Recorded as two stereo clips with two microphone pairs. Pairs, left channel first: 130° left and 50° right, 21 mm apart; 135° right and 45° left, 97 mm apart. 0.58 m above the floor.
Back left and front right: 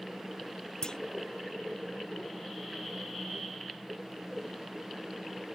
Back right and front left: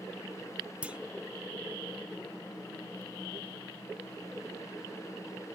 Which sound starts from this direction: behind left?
A clunk, at 0.8 s.